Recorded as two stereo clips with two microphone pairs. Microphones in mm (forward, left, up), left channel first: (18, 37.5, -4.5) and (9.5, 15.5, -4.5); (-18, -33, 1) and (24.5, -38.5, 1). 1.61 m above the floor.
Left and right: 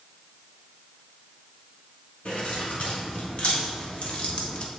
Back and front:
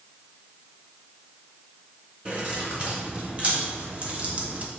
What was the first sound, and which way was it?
Keys jangling, 50° left.